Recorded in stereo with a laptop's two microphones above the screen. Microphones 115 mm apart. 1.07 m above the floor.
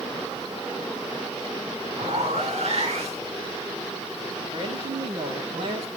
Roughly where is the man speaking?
Right.